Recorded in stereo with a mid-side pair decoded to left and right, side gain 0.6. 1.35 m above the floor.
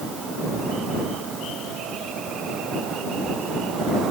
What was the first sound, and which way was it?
Only background noise.